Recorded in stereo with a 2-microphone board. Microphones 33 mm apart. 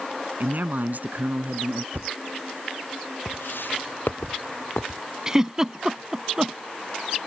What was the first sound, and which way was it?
A man speaking, 60° right (ahead or behind).